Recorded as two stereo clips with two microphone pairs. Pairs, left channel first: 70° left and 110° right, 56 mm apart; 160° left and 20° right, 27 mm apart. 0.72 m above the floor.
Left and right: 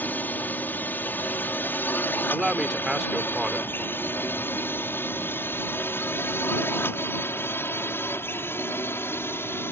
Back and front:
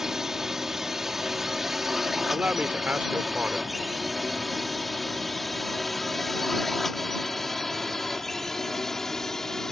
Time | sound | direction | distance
0.0 | a drone | 40° left | ?
2.3 | a man speaking | 25° right | ?